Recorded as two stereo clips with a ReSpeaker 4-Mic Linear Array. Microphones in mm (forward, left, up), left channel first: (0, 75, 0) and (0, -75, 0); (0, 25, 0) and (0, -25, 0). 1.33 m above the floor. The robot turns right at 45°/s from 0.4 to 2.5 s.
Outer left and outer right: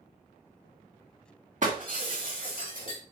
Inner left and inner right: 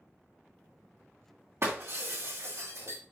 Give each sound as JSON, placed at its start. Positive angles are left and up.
{"t": 1.6, "sound": "breaking glass", "side_deg": -55, "distance_m": 3.0}